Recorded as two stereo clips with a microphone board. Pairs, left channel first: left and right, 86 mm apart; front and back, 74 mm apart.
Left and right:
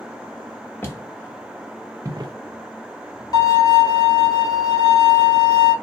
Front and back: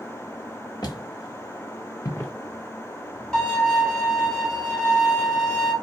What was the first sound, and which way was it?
Footsteps, 25° left.